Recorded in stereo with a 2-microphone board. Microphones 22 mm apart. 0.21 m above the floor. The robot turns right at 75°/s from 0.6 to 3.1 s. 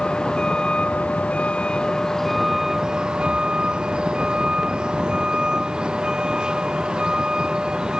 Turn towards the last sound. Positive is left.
turn(degrees=-45)  # may be behind; listen again after turning